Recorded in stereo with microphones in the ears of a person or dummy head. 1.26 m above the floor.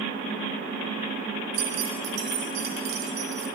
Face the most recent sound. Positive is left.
turn(degrees=-35)  # may be behind; listen again after turning